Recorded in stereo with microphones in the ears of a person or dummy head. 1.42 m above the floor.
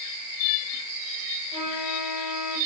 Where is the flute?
25° left (ahead or behind), 4.5 m.